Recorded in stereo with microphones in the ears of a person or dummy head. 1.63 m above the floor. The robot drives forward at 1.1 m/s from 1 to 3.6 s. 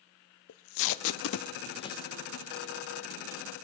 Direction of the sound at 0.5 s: 65° left (ahead or behind).